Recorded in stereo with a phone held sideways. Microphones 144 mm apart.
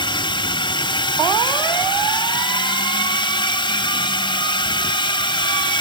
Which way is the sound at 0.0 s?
35° left (ahead or behind).